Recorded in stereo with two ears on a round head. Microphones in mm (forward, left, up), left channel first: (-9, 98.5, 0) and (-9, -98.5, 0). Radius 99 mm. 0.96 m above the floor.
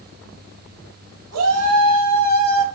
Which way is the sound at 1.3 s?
80° right.